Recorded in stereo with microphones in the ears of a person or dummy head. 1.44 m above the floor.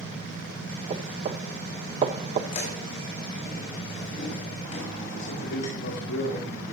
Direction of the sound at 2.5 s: 45° left (ahead or behind).